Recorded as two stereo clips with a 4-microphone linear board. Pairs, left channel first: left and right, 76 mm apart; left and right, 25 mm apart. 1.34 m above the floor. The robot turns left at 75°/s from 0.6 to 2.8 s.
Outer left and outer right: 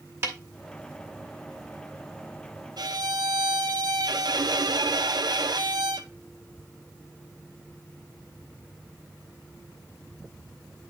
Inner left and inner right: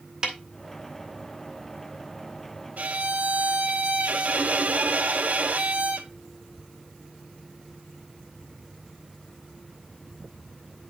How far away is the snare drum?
About 1.7 m.